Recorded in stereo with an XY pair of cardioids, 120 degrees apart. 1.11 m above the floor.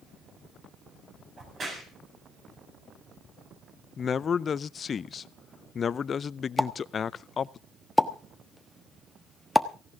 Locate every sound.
1.4 s a crack: 40° right, 7 m
4.0 s a man speaking: 40° left, 0.5 m
6.6 s a pop: straight ahead, 1.1 m